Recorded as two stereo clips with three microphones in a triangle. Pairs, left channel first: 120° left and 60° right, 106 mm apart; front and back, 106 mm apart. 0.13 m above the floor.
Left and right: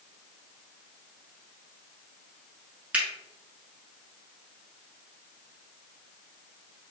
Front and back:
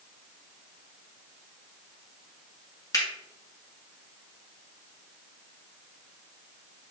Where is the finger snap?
5° left, 1.0 m.